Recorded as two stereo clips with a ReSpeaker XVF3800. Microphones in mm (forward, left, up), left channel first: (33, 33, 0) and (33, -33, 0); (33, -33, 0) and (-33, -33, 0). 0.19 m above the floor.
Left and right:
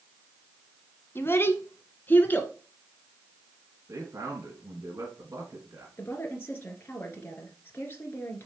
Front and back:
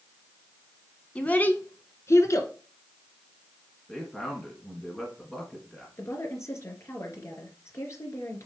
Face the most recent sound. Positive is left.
turn(degrees=35)